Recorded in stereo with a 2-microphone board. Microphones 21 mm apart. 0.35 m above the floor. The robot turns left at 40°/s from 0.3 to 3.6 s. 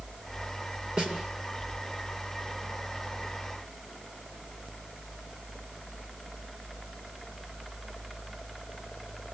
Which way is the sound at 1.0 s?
70° right (ahead or behind).